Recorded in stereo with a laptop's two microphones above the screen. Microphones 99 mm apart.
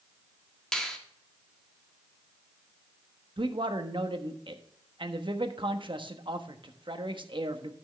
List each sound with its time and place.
0.7 s a finger snap: 5° left (ahead or behind), 1.7 m
3.4 s a man speaking: 55° right (ahead or behind), 1.1 m